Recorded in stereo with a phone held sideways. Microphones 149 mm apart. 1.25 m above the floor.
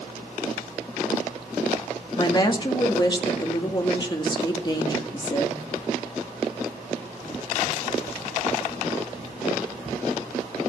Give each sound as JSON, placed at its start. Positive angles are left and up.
{"t": 2.2, "sound": "a woman speaking", "side_deg": 30, "distance_m": 2.0}